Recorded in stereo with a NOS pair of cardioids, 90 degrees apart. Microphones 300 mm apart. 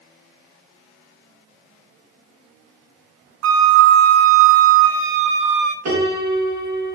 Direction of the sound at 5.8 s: 70° right.